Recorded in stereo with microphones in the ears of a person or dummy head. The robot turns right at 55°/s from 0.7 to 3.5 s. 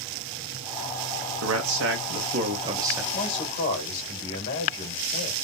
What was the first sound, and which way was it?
A man speaking, 100° right.